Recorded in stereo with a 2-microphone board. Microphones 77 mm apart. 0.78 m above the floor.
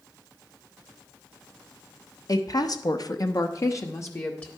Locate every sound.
2.3 s a woman speaking: 50° left (ahead or behind), 0.9 m; by 4.5 s 30° left (ahead or behind), 1.1 m